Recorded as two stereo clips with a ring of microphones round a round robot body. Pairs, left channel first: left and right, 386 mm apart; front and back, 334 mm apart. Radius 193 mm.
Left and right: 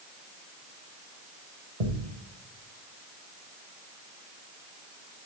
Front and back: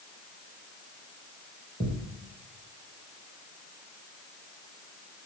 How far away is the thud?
About 4.5 m.